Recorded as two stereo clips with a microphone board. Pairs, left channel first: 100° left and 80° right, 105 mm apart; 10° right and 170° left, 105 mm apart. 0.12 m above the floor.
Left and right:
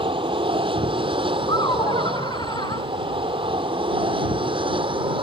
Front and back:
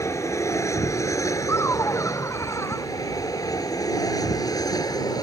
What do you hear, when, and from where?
0.0 s an aircraft: 65° right; by 5.2 s 60° right
1.5 s laughter: 55° left